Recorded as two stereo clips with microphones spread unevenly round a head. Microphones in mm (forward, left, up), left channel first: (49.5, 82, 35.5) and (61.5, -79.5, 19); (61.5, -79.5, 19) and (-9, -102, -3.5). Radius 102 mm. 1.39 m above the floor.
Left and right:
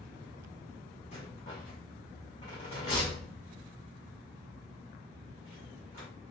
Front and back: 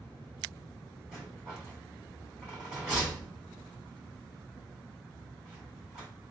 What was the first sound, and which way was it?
A rattle, 100° left.